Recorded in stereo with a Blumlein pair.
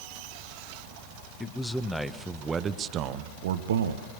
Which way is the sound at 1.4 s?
10° left.